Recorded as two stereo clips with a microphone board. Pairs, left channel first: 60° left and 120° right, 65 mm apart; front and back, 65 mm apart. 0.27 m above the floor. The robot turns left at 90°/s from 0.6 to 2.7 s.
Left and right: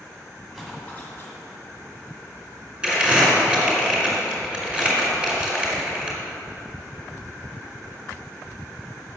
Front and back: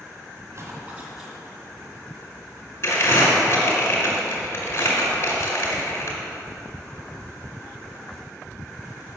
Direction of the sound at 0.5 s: 150° left.